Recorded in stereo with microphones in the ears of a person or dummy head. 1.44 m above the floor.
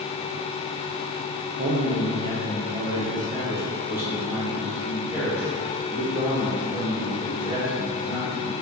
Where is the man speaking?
40° right (ahead or behind), 1.1 m; by 8.5 s 5° right (ahead or behind), 4.5 m.